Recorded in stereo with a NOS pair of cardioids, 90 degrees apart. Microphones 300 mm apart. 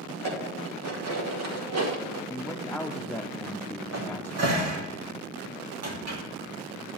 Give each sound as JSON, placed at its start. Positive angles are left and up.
{"t": 0.1, "sound": "dishes clattering", "azimuth_deg": -65, "distance_m": 2.5}
{"t": 2.3, "sound": "a man speaking", "azimuth_deg": 5, "distance_m": 0.9}
{"t": 3.9, "sound": "a cupboard door", "azimuth_deg": -60, "distance_m": 2.5}